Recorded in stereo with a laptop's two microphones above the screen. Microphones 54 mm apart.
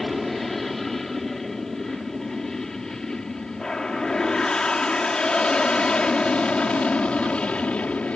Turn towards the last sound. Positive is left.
turn(degrees=25)  # may be behind; listen again after turning